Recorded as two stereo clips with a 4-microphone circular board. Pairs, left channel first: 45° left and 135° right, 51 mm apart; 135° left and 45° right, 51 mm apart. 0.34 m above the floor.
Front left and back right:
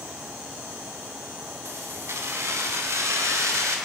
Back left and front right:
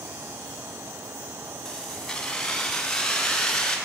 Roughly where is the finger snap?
I don't hear a finger snap.